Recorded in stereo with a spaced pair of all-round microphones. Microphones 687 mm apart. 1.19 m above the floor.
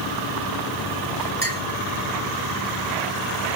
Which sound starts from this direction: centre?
A clink, at 1.4 s.